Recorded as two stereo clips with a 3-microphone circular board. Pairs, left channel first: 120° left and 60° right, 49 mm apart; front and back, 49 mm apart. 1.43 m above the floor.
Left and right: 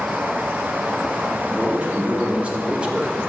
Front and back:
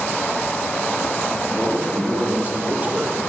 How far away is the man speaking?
About 2.5 m.